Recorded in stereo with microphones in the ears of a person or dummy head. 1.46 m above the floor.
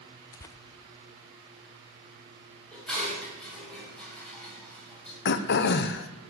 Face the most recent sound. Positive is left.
turn(degrees=55)  # may be behind; listen again after turning